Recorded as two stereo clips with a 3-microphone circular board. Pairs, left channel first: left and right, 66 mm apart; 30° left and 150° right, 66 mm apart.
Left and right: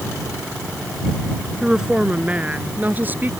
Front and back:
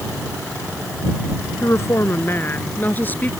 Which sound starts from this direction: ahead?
A woman speaking, at 1.6 s.